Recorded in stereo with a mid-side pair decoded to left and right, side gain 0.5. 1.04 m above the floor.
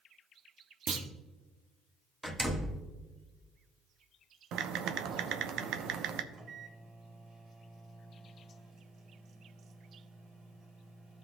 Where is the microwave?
60° right, 3.5 m.